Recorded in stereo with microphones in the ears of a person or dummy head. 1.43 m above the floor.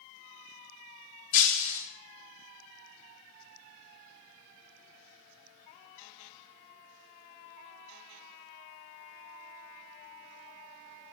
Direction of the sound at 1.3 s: 45° left (ahead or behind).